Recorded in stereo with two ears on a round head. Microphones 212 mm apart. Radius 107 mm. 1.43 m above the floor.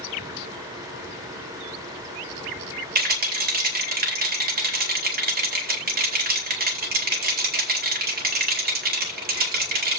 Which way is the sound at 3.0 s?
40° right (ahead or behind).